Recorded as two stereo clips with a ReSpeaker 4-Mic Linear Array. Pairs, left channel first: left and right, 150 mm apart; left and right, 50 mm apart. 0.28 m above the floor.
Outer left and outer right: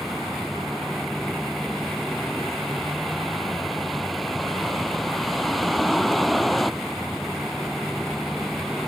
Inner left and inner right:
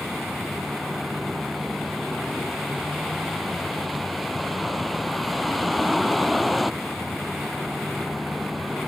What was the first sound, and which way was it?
A vehicle, centre (ahead or behind).